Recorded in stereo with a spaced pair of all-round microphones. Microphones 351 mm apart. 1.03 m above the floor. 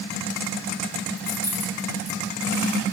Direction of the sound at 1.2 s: 45° left (ahead or behind).